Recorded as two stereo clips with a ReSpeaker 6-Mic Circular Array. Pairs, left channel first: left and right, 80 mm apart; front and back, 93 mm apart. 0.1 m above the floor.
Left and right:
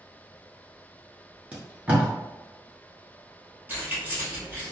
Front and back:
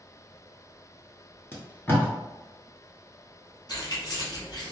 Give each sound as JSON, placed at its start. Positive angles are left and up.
{"t": 1.5, "sound": "tape being pulled", "azimuth_deg": -35, "distance_m": 1.1}
{"t": 3.7, "sound": "keys jangling", "azimuth_deg": -30, "distance_m": 1.7}